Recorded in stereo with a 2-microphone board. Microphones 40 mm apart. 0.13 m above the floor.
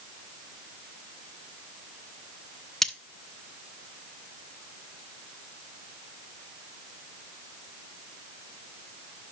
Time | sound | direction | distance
2.8 | cutlery clinking | 10° left (ahead or behind) | 0.6 m